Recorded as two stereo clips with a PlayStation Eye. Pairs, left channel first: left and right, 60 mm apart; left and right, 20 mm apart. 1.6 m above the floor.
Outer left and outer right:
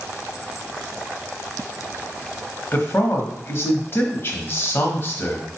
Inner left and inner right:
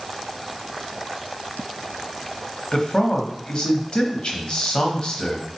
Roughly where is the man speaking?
Left.